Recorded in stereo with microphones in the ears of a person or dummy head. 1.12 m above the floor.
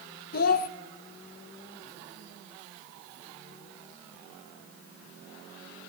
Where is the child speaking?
55° left (ahead or behind), 0.6 m.